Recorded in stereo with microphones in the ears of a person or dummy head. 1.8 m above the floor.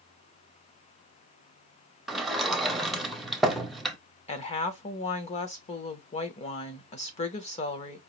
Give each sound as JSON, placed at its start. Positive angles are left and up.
{"t": 2.1, "sound": "a sliding door", "side_deg": 0, "distance_m": 0.7}
{"t": 4.3, "sound": "a woman speaking", "side_deg": 40, "distance_m": 0.8}